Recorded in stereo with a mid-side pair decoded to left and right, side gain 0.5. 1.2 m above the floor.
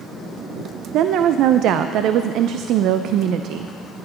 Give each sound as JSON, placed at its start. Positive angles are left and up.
{"t": 0.9, "sound": "a woman speaking", "azimuth_deg": -70, "distance_m": 0.5}